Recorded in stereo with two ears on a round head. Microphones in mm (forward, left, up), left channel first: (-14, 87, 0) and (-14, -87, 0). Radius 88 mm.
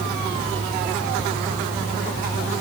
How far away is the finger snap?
I don't hear a finger snap.